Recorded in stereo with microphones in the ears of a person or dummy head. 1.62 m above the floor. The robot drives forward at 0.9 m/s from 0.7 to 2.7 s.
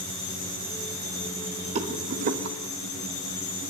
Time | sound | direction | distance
1.8 | a rattle | 40° right (ahead or behind) | 1.4 m